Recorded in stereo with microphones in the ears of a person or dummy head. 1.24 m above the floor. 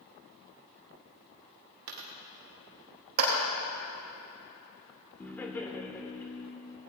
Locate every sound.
1.9 s a dropped coin: 50° right (ahead or behind), 1.2 m
3.2 s a clap: 55° right (ahead or behind), 3.5 m
5.2 s laughter: 15° left (ahead or behind), 1.4 m